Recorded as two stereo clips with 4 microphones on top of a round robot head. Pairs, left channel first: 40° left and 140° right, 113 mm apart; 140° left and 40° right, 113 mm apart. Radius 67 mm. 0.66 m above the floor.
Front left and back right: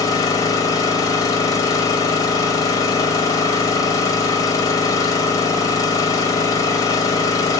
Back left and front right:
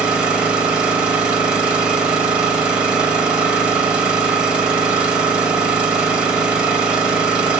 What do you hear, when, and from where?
0.0 s an engine running: 30° left, 0.9 m